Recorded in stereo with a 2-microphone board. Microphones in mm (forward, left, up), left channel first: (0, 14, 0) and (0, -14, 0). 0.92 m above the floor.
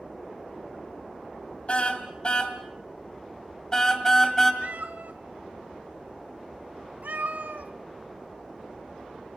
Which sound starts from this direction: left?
A car horn, at 1.7 s.